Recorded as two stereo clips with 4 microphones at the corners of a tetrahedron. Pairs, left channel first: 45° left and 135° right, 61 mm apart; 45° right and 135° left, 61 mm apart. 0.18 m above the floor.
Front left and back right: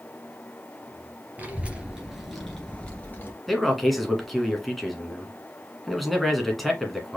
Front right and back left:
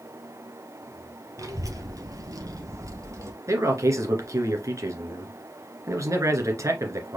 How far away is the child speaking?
About 2.5 m.